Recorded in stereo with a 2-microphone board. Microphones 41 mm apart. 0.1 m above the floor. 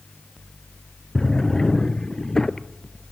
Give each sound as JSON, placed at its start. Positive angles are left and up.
{"t": 1.1, "sound": "a drawer", "side_deg": 15, "distance_m": 0.6}